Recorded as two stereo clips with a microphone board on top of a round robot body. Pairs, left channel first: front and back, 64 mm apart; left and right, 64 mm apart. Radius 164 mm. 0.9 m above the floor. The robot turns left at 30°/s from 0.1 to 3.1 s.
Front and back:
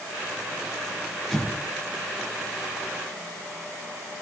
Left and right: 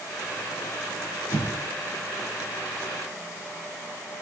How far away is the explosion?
About 3 m.